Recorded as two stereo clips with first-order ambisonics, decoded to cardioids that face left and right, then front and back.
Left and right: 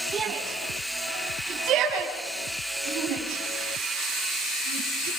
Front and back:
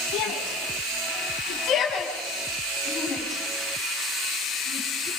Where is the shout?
25° right, 5 m; by 5.1 s 80° right, 7 m.